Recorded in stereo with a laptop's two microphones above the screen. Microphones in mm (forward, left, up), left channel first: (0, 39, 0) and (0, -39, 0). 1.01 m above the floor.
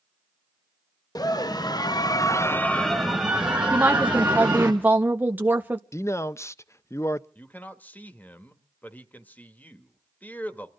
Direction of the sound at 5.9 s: 40° left (ahead or behind).